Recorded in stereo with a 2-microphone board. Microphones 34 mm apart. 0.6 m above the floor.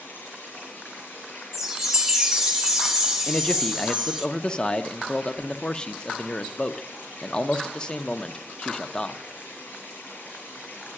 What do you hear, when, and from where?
0.0 s running water: 65° left (ahead or behind), 8.5 m
1.5 s a chime: 15° right (ahead or behind), 1.1 m
3.3 s a man speaking: 25° left (ahead or behind), 0.6 m